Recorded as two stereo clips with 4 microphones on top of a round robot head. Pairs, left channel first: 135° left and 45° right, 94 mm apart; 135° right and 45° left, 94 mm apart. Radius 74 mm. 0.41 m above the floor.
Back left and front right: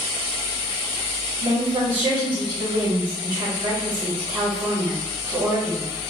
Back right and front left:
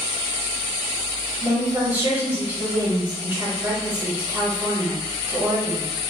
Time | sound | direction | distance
1.4 | a woman speaking | 15° right | 1.8 m